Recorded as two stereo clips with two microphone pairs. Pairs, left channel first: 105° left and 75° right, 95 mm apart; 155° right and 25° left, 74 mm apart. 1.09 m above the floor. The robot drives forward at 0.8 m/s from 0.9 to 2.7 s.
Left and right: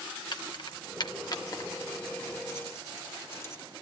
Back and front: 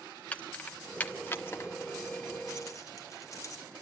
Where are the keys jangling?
135° left, 1.0 m; by 3.6 s 165° left, 2.5 m.